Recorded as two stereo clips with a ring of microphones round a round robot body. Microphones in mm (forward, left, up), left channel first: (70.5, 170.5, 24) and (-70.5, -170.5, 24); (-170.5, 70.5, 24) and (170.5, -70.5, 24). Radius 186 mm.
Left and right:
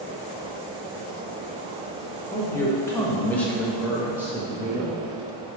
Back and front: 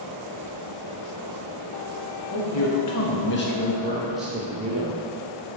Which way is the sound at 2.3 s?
145° left.